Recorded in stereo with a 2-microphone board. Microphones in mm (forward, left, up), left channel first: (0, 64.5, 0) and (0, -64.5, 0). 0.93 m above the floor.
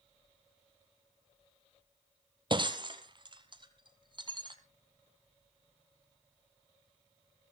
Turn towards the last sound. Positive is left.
turn(degrees=-40)  # may be behind; listen again after turning